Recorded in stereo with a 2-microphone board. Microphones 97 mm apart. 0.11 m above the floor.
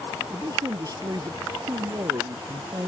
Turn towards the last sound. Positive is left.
turn(degrees=-40)  # may be behind; listen again after turning